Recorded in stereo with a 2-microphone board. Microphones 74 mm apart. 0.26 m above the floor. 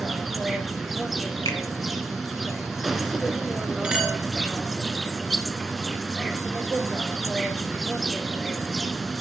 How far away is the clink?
About 2.5 m.